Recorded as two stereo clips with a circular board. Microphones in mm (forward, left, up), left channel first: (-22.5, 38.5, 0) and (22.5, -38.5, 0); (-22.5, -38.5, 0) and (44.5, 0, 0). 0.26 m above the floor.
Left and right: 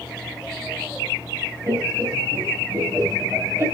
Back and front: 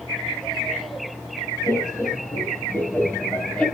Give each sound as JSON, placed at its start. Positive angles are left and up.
{"t": 1.7, "sound": "laughter", "azimuth_deg": -105, "distance_m": 2.5}